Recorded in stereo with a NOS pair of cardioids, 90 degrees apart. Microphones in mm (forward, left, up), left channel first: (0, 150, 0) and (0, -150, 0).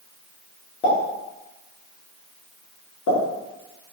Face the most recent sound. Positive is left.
turn(degrees=70)